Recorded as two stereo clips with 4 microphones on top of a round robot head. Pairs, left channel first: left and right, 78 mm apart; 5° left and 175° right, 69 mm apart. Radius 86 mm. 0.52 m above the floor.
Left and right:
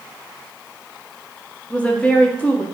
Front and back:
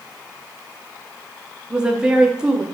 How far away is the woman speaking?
About 0.6 m.